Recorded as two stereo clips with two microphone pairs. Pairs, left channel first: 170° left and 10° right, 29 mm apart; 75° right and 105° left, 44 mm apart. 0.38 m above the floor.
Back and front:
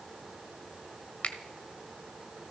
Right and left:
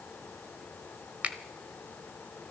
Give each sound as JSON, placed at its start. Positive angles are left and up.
{"t": 1.2, "sound": "a finger snap", "azimuth_deg": 150, "distance_m": 1.1}